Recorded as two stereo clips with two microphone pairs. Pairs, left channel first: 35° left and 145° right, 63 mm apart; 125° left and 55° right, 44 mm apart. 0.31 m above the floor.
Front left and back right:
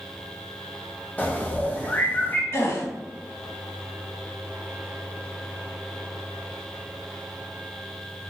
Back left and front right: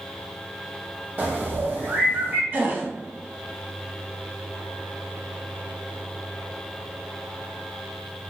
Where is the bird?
20° right, 0.5 m.